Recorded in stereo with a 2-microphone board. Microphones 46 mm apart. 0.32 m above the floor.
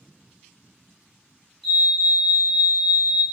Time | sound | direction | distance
1.6 | a fire alarm | 5° left (ahead or behind) | 1.9 m